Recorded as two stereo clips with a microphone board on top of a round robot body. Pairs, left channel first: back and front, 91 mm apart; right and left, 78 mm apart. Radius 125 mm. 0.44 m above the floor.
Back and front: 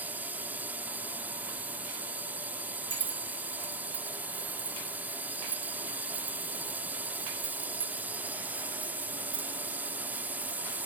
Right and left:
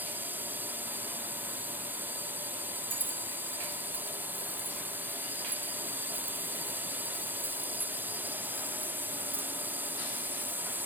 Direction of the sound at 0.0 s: 50° left.